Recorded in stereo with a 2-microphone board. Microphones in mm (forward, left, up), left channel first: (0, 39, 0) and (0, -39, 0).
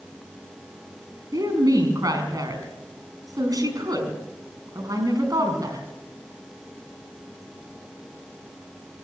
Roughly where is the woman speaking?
Right.